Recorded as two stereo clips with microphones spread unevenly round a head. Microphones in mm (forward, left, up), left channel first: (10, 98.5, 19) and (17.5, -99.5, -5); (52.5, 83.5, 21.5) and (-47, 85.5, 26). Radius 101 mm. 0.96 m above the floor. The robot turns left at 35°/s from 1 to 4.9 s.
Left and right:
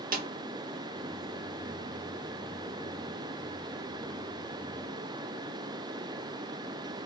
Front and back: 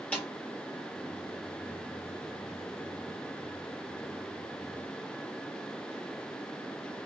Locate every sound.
0.1 s a snare drum: 75° right, 1.0 m